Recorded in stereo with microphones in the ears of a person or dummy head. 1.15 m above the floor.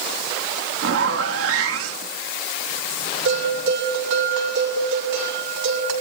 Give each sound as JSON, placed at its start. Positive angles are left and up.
{"t": 0.8, "sound": "a zipper", "side_deg": -80, "distance_m": 1.8}
{"t": 3.2, "sound": "a bell", "side_deg": -80, "distance_m": 7.0}